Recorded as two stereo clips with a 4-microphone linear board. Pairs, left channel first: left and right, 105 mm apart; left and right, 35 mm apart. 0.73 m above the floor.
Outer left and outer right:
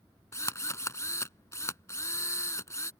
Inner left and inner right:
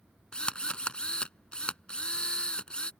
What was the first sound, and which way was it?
A drill, 25° left (ahead or behind).